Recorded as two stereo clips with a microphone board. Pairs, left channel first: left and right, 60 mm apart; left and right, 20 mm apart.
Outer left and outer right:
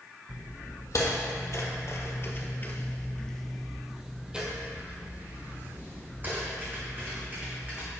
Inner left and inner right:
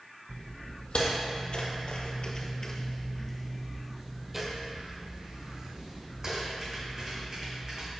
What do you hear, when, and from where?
0.3 s footsteps: 60° left (ahead or behind), 2 m; by 7.9 s 35° right (ahead or behind), 4 m